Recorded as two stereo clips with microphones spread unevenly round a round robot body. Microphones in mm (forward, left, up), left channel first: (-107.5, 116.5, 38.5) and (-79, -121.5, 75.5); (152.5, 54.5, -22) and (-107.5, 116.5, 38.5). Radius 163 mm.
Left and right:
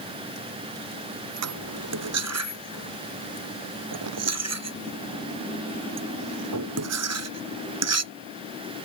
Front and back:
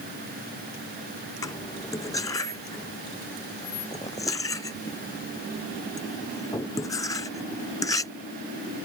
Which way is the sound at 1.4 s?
95° right.